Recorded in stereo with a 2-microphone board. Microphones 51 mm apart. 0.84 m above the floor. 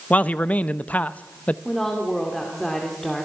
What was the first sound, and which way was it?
A man speaking, 30° left (ahead or behind).